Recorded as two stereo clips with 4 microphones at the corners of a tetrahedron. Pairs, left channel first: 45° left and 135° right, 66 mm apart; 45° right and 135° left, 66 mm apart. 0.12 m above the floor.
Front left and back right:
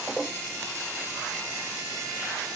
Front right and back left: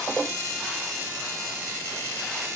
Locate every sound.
Only background noise.